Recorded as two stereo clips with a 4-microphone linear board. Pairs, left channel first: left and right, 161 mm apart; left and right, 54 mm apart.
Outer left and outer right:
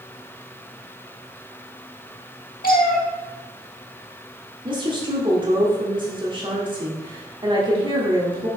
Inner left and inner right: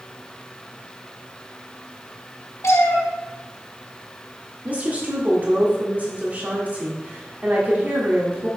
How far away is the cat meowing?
About 1.2 m.